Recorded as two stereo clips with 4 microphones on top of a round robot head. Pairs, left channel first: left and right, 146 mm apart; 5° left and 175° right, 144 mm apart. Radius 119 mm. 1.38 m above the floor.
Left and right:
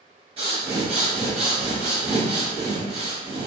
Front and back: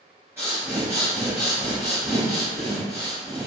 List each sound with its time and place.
0.4 s breathing: 105° right, 0.7 m